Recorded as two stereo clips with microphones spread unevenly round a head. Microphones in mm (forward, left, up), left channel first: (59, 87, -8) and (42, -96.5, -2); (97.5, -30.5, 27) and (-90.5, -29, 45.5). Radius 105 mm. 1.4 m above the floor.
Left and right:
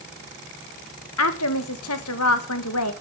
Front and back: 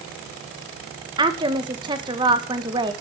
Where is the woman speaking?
110° left, 1.5 m.